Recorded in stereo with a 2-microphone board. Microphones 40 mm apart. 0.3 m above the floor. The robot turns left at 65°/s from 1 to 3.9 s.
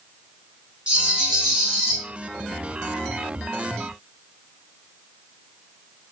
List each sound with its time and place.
0.9 s a rattle: 25° right (ahead or behind), 1.3 m; by 2.0 s 5° left (ahead or behind), 1.3 m